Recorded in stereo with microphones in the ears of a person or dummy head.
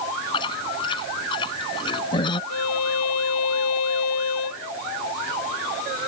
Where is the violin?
80° left.